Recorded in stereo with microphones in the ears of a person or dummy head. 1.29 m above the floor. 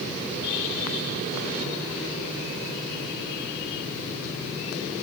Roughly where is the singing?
I don't hear singing.